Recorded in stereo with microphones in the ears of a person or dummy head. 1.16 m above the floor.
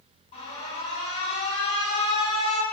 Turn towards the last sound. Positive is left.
turn(degrees=35)  # may be behind; listen again after turning